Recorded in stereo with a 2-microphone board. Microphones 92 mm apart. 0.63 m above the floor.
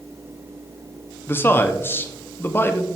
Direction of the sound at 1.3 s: 25° left (ahead or behind).